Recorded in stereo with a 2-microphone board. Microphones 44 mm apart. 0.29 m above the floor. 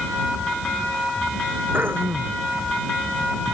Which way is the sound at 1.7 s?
55° right (ahead or behind).